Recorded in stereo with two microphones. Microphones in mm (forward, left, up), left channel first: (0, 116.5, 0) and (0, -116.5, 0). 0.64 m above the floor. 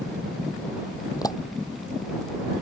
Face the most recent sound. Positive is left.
turn(degrees=15)  # may be behind; listen again after turning